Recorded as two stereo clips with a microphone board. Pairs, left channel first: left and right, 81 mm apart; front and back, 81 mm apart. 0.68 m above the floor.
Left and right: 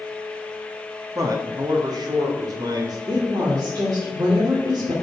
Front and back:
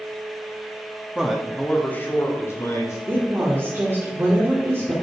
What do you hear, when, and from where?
1.1 s a man speaking: 105° right, 1.4 m; by 3.0 s 50° right, 3.5 m
3.1 s a woman speaking: 125° right, 2.5 m